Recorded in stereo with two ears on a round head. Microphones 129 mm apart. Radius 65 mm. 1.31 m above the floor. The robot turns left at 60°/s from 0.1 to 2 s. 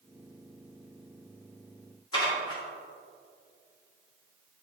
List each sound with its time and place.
2.1 s dishes clattering: 30° left (ahead or behind), 1.9 m